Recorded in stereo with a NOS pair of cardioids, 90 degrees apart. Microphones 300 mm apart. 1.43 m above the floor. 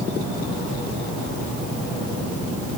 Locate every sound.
Only background noise.